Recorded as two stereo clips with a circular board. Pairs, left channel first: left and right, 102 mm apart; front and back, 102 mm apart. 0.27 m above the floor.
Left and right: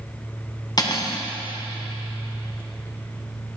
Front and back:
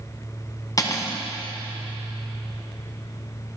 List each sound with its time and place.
0.8 s cutlery clinking: 50° left, 1.0 m